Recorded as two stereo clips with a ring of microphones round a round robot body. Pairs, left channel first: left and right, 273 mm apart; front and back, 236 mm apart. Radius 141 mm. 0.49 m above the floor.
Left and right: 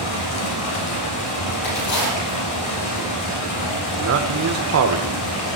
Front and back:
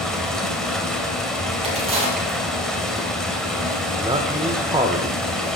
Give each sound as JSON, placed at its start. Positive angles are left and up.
{"t": 0.0, "sound": "running water", "azimuth_deg": 90, "distance_m": 2.5}
{"t": 1.6, "sound": "a crack", "azimuth_deg": 115, "distance_m": 6.0}
{"t": 4.0, "sound": "a man speaking", "azimuth_deg": -110, "distance_m": 1.4}